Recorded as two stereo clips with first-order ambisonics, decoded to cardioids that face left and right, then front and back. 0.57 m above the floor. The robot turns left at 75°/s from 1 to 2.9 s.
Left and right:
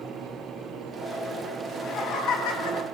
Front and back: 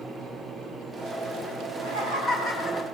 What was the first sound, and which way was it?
Laughter, 160° left.